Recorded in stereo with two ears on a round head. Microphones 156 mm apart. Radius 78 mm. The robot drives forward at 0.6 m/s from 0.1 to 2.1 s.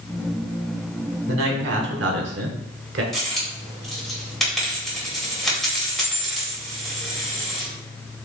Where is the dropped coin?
Centre (ahead or behind), 1.7 m.